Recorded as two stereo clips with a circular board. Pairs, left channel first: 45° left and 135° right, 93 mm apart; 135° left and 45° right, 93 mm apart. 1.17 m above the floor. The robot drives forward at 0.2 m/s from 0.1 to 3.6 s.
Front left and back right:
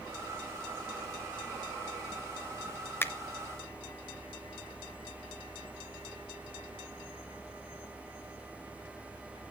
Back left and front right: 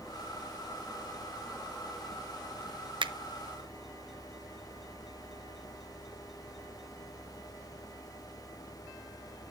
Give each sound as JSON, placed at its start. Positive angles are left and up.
{"t": 3.0, "sound": "a finger snap", "azimuth_deg": -20, "distance_m": 0.5}